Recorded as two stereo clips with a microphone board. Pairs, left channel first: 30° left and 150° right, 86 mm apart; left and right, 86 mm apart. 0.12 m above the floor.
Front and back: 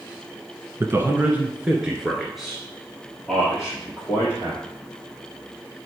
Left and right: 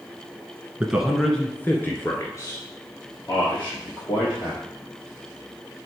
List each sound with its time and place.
0.8 s a man speaking: 150° right, 1.4 m; by 4.6 s 105° left, 4 m